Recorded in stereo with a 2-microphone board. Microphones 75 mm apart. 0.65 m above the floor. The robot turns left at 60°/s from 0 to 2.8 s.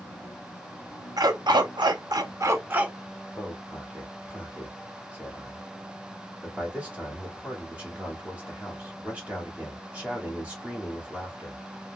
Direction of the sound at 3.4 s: 20° right (ahead or behind).